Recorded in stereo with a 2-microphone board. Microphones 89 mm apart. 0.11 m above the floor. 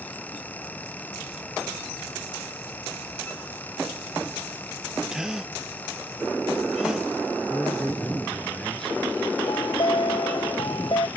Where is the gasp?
5° right (ahead or behind).